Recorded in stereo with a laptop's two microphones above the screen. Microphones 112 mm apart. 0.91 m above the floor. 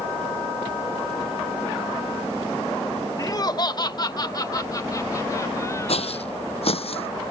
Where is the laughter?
30° left (ahead or behind); by 6.3 s 25° left (ahead or behind).